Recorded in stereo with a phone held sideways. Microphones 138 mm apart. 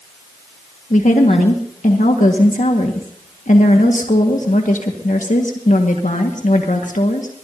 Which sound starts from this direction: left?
A woman speaking, at 0.9 s.